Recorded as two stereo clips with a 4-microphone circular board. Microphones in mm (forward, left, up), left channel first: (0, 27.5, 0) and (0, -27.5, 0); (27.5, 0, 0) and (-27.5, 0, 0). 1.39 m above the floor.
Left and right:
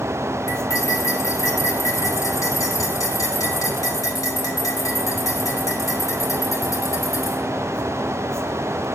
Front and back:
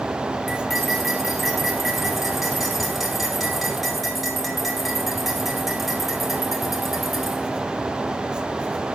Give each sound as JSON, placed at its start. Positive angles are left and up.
{"t": 0.5, "sound": "cutlery clinking", "azimuth_deg": 90, "distance_m": 1.9}